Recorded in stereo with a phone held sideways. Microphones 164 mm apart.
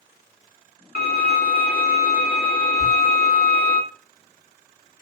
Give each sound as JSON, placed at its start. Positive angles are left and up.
{"t": 0.9, "sound": "a violin", "side_deg": 85, "distance_m": 1.6}
{"t": 2.8, "sound": "a thud", "side_deg": -55, "distance_m": 2.0}